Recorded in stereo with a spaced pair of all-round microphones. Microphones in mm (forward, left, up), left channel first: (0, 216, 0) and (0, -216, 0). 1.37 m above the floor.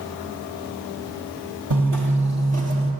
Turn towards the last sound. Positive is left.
turn(degrees=-30)  # may be behind; listen again after turning